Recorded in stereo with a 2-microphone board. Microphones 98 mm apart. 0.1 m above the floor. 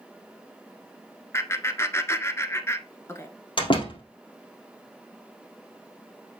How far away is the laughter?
About 1.1 m.